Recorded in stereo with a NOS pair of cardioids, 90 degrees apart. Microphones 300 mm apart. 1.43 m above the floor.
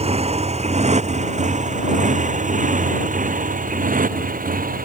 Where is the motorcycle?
20° right; by 4.9 s 25° right.